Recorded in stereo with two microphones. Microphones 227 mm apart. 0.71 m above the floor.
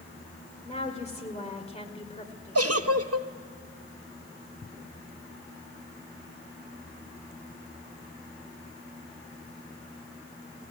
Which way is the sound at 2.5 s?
80° right.